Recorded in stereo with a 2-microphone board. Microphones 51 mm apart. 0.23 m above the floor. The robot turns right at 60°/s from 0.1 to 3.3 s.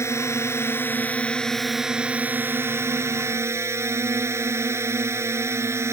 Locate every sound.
0.0 s a drone: 85° left; by 5.9 s 80° right